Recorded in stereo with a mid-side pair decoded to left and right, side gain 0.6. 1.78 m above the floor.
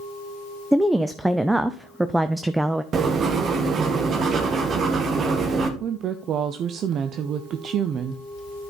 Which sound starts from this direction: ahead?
A woman speaking, at 0.7 s.